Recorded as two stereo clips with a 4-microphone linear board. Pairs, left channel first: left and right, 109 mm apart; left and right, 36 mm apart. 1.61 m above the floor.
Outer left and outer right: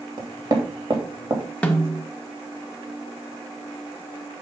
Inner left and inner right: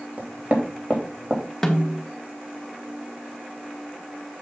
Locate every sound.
0.2 s knocking: 45° right (ahead or behind), 2.5 m
1.6 s a snare drum: 10° left (ahead or behind), 1.2 m